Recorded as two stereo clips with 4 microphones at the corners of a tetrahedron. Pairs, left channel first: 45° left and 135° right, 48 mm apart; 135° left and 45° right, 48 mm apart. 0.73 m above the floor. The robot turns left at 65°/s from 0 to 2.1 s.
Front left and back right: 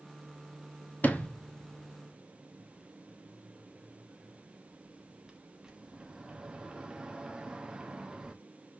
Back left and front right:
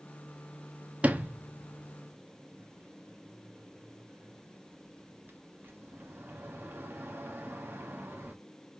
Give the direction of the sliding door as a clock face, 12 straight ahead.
12 o'clock.